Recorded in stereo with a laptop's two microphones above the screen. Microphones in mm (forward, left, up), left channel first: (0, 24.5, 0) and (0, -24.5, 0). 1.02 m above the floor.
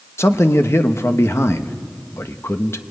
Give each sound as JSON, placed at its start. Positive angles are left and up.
{"t": 0.2, "sound": "a man speaking", "side_deg": 60, "distance_m": 1.0}